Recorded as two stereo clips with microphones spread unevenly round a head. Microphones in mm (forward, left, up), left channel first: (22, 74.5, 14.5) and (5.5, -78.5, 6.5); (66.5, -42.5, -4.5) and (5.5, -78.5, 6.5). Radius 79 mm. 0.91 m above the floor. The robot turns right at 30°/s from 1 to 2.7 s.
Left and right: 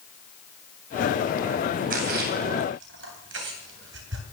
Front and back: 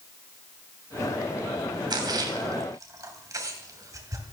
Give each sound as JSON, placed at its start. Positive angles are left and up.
{"t": 1.9, "sound": "a splash", "azimuth_deg": -135, "distance_m": 3.0}